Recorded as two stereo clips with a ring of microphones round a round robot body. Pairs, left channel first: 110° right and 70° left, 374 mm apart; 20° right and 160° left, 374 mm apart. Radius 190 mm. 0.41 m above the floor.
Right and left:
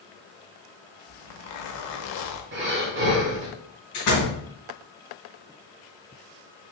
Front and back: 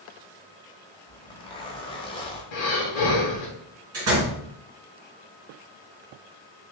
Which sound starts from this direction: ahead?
Breathing, at 2.5 s.